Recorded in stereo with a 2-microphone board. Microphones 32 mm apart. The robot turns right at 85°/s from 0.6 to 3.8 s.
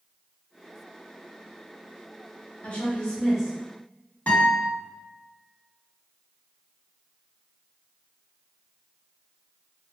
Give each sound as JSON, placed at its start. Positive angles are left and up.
{"t": 2.6, "sound": "a woman speaking", "azimuth_deg": 120, "distance_m": 1.2}
{"t": 4.3, "sound": "a guitar", "side_deg": 50, "distance_m": 1.5}